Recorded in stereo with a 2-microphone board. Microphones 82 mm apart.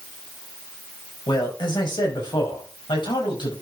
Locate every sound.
1.3 s a man speaking: 75° left (ahead or behind), 4 m; by 3.5 s 80° left, 5 m